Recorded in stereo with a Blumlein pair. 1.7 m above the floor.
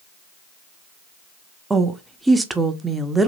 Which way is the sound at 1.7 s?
10° right.